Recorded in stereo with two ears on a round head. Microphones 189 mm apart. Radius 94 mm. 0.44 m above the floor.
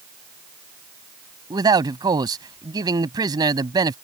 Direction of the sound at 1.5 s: 20° right (ahead or behind).